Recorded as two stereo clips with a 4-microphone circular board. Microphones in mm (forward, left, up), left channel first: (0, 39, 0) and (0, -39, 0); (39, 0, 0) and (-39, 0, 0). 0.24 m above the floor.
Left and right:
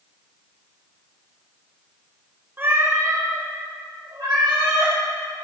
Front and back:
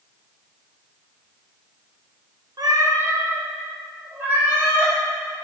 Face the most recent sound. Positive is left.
turn(degrees=-115)